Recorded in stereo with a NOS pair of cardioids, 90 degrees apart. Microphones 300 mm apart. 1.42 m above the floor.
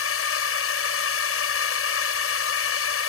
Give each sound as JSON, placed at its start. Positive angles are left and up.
{"t": 0.0, "sound": "a drone", "azimuth_deg": 50}